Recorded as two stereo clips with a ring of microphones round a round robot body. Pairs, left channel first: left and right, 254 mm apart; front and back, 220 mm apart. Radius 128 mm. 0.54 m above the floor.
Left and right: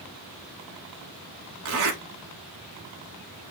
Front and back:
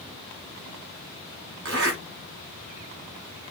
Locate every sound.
1.6 s a zipper: 130° right, 1.5 m